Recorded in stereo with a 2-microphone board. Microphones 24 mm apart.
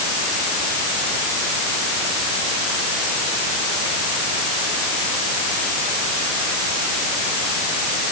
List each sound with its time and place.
Only background noise.